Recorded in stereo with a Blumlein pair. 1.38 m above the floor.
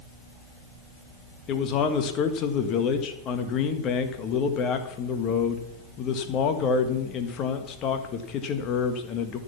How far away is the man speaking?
About 1.7 m.